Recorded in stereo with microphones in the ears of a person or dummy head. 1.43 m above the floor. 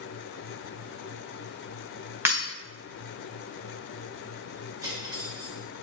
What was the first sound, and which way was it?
Breaking glass, 10° right (ahead or behind).